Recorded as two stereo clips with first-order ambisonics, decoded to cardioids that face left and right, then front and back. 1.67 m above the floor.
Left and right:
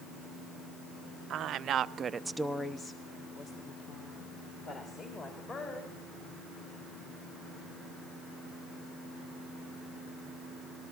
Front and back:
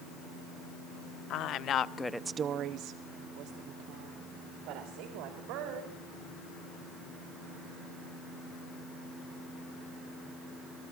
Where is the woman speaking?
40° right, 1.1 m; by 6.0 s 150° left, 4 m.